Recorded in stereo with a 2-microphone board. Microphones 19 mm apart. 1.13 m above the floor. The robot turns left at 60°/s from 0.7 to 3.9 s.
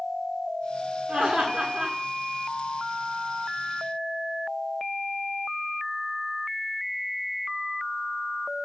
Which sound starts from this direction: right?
Laughter, at 1.1 s.